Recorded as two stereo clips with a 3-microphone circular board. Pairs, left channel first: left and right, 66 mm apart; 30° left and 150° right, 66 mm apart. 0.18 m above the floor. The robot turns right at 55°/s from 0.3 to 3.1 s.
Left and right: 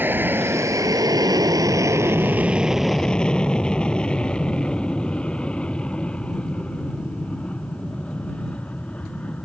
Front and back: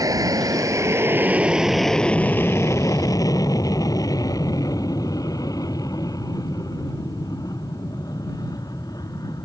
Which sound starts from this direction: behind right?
An aircraft, at 0.0 s.